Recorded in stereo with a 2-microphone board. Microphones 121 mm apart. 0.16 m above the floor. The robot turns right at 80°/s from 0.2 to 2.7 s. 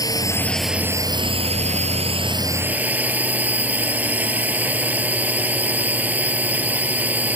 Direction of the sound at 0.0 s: 145° left.